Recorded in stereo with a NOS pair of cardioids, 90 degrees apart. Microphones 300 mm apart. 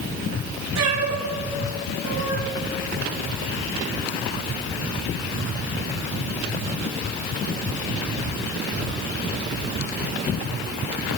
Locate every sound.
0.8 s a cat meowing: 60° right, 4 m